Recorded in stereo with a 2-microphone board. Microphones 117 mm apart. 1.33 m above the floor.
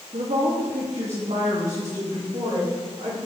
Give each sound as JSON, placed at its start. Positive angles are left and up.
{"t": 0.1, "sound": "a woman speaking", "side_deg": -60, "distance_m": 0.8}